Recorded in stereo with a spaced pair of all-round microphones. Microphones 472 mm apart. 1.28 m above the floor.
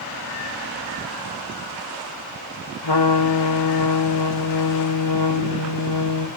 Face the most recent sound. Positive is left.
turn(degrees=60)  # may be behind; listen again after turning